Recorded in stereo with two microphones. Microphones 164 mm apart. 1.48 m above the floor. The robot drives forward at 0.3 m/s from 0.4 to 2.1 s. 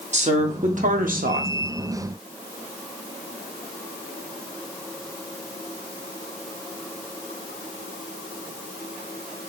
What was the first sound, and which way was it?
A woman speaking, 45° right (ahead or behind).